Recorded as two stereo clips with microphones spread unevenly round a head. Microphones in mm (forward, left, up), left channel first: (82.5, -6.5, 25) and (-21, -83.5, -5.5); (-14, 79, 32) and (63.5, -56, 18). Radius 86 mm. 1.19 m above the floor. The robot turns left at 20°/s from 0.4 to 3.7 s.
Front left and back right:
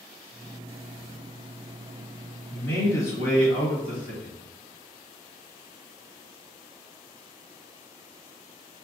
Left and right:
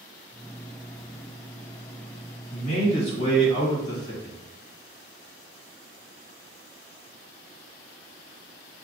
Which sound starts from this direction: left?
A man speaking, at 2.5 s.